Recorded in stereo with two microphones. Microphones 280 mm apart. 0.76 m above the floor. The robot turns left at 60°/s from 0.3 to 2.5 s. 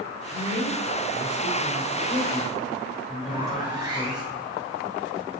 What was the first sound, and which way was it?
A woman speaking, 130° left.